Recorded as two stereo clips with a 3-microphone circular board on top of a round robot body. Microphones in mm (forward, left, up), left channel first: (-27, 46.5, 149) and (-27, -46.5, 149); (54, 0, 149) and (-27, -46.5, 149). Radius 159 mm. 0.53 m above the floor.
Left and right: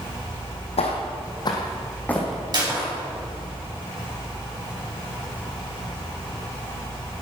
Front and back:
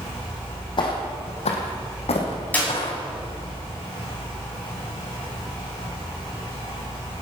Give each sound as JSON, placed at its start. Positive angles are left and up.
{"t": 0.8, "sound": "footsteps", "azimuth_deg": 75, "distance_m": 1.7}
{"t": 2.5, "sound": "a clap", "azimuth_deg": -45, "distance_m": 5.5}